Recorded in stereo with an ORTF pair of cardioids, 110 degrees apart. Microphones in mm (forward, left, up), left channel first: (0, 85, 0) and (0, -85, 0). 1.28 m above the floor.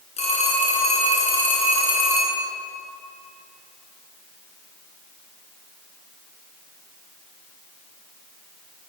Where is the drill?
I don't hear a drill.